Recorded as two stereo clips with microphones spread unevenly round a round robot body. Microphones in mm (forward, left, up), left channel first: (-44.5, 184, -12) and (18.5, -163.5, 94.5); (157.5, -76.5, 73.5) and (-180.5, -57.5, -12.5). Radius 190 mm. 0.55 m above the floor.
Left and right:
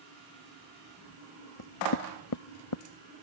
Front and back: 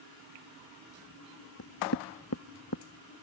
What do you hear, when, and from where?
1.6 s knocking: 55° left